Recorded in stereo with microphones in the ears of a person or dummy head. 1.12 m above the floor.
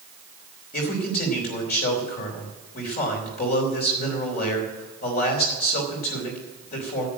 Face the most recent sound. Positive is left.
turn(degrees=45)  # may be behind; listen again after turning